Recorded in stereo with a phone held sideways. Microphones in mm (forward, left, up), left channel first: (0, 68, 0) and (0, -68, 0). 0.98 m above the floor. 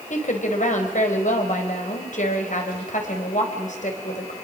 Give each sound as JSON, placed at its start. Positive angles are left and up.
{"t": 0.1, "sound": "a woman speaking", "side_deg": 65, "distance_m": 4.0}